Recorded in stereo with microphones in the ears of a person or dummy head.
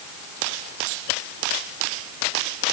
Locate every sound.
Only background noise.